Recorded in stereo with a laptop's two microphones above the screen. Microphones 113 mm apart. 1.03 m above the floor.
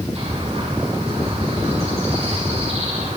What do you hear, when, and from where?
0.1 s a bird: 65° right (ahead or behind), 9.5 m